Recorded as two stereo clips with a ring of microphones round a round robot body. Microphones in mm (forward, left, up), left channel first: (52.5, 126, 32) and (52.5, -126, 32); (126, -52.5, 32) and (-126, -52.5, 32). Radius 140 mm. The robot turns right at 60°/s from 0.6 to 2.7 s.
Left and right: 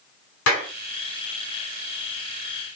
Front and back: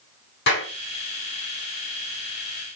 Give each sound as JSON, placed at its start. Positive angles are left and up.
{"t": 0.5, "sound": "a clap", "azimuth_deg": 55, "distance_m": 5.0}